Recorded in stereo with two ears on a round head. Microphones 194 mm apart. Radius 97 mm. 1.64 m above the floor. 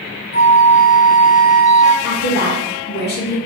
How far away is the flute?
About 0.6 m.